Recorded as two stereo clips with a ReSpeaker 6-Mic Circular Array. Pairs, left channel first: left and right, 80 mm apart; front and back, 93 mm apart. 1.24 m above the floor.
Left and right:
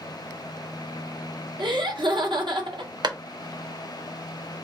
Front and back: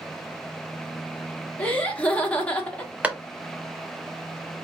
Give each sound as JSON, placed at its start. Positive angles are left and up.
{"t": 1.6, "sound": "laughter", "azimuth_deg": -75, "distance_m": 1.1}
{"t": 3.0, "sound": "a clap", "azimuth_deg": -105, "distance_m": 0.7}